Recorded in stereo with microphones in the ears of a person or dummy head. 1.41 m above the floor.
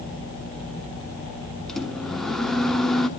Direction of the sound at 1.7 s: 5° left (ahead or behind).